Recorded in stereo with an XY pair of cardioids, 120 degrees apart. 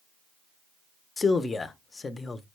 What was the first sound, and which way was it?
A man speaking, 25° left.